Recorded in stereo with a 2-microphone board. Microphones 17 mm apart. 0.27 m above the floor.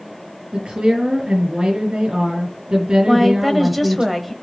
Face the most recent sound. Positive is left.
turn(degrees=-5)  # may be behind; listen again after turning